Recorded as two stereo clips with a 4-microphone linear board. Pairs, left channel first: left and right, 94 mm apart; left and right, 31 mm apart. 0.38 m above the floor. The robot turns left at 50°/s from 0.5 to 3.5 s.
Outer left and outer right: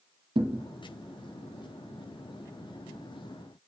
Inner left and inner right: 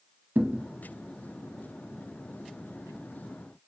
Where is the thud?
85° right, 0.6 m; by 0.7 s 80° right, 0.6 m.